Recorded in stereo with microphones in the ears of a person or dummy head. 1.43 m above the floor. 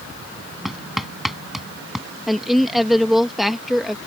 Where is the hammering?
Centre (ahead or behind).